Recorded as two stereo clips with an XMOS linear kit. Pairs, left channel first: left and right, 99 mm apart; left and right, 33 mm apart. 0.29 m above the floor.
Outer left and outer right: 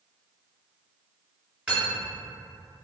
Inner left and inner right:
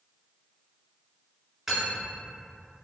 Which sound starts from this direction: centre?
Cutlery clinking, at 1.7 s.